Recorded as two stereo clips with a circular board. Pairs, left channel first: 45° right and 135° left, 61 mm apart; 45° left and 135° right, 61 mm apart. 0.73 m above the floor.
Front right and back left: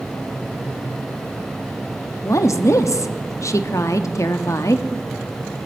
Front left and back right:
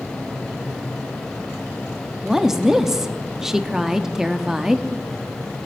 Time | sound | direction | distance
2.2 | a woman speaking | 55° right | 0.9 m